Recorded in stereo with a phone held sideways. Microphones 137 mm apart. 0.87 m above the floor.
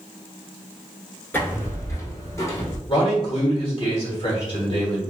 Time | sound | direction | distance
1.3 | footsteps | 15° left (ahead or behind) | 0.8 m
2.9 | a man speaking | 40° left (ahead or behind) | 1.0 m